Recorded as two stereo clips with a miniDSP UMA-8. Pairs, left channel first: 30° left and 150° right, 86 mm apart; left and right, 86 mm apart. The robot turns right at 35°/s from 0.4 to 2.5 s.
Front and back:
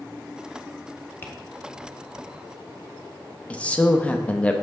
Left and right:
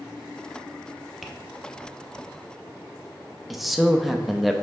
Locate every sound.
1.2 s tapping: straight ahead, 0.7 m; by 1.3 s 5° left, 0.7 m
3.5 s a man speaking: straight ahead, 0.5 m